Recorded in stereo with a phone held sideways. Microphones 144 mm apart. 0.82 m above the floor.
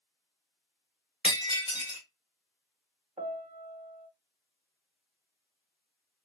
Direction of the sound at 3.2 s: 60° right (ahead or behind).